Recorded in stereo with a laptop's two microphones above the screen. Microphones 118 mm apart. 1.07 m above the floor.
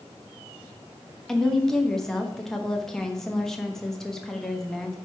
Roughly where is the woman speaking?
Centre.